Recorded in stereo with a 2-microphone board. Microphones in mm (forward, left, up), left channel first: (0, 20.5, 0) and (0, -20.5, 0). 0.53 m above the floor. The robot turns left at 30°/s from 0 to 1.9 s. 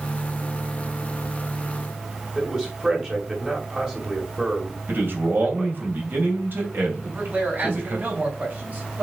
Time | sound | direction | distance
2.4 | a man speaking | 20° right (ahead or behind) | 2.5 m
4.9 | a man speaking | 55° right (ahead or behind) | 2.5 m
7.0 | a man speaking | 40° right (ahead or behind) | 4 m